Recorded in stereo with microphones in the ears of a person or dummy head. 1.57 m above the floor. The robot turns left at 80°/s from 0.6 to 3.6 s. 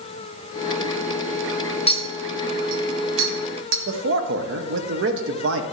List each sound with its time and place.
1.9 s a clink: 35° left (ahead or behind), 1.1 m; by 3.8 s 70° right (ahead or behind), 1.1 m
3.9 s a man speaking: 85° right, 0.9 m